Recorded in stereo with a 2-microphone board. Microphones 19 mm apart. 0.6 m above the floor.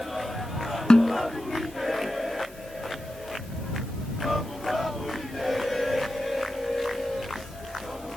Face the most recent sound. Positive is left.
turn(degrees=55)  # may be behind; listen again after turning